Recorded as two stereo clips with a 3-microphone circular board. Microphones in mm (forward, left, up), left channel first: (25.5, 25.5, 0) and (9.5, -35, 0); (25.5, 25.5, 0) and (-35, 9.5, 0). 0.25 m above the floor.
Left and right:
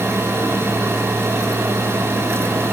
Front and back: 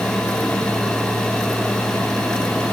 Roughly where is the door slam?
No door slam in this recording.